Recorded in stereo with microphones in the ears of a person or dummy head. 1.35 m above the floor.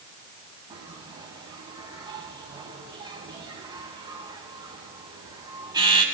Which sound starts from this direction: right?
A bell, at 0.7 s.